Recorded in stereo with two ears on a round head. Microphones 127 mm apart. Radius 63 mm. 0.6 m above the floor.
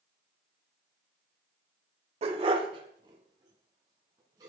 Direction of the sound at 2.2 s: 45° right (ahead or behind).